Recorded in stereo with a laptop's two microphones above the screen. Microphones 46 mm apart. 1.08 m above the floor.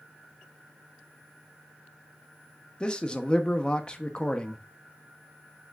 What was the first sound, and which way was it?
A man speaking, 25° left (ahead or behind).